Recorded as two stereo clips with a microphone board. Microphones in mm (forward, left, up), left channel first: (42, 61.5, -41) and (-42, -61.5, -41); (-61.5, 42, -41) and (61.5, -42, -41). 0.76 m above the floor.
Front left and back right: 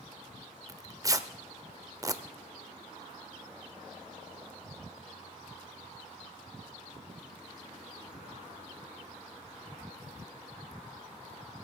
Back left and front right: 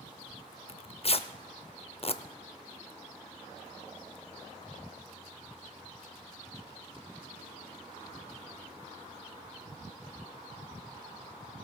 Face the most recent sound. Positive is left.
turn(degrees=175)